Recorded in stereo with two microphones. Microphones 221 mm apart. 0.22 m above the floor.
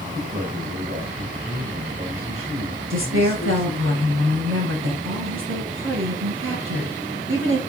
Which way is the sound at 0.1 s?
25° right (ahead or behind).